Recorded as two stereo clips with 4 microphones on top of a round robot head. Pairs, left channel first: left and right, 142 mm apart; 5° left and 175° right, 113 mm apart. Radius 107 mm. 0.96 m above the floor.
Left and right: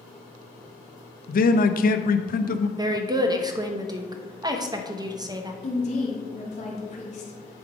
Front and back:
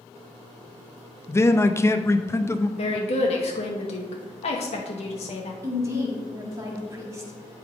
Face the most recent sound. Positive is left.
turn(degrees=125)